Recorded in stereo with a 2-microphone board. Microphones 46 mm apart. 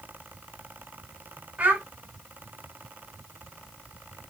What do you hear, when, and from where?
1.6 s a child speaking: 35° right (ahead or behind), 1.3 m